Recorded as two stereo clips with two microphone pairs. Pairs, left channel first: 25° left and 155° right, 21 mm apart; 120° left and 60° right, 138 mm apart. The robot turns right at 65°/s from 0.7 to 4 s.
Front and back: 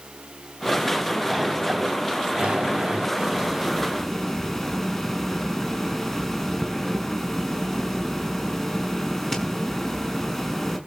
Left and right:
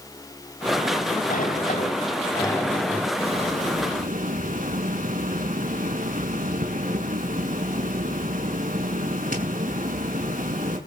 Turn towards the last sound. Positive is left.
turn(degrees=-55)